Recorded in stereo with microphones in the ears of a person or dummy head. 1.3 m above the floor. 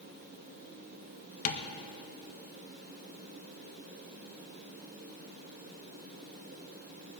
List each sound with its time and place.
1.4 s tapping: 45° left (ahead or behind), 1.5 m